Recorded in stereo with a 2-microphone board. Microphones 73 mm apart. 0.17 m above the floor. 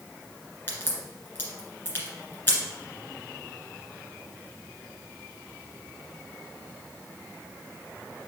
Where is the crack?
25° left (ahead or behind), 2 m.